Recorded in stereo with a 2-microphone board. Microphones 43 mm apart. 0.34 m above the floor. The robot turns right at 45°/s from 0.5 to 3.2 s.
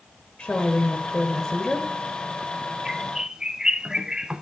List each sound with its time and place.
0.4 s a woman speaking: 25° left (ahead or behind), 1.1 m; by 1.9 s 10° left (ahead or behind), 1.1 m
2.9 s a bird: 5° right (ahead or behind), 0.6 m; by 4.4 s 20° right (ahead or behind), 0.6 m